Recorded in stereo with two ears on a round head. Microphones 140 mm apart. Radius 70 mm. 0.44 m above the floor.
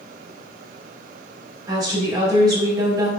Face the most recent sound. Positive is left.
turn(degrees=-25)  # may be behind; listen again after turning